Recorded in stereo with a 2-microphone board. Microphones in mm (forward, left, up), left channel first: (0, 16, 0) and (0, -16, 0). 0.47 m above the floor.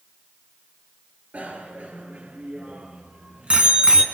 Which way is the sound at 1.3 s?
65° right (ahead or behind).